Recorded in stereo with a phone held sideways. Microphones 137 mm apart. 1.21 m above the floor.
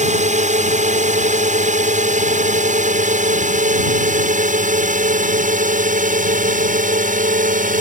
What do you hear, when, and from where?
0.0 s a drone: 60° right (ahead or behind); by 7.8 s 70° right (ahead or behind)